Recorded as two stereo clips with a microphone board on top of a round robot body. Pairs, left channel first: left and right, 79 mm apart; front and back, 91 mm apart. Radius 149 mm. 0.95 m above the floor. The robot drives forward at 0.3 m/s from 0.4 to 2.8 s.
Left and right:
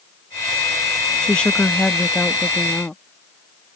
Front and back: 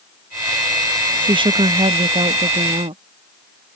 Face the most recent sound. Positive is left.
turn(degrees=170)